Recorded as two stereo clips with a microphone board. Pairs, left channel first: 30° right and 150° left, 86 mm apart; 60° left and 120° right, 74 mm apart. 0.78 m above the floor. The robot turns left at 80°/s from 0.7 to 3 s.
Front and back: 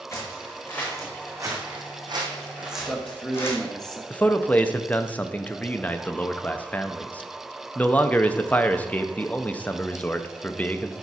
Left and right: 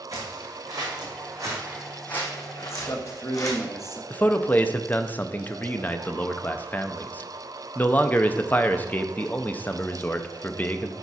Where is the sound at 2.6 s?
80° left, 1.1 m; by 4.0 s 50° left, 1.1 m.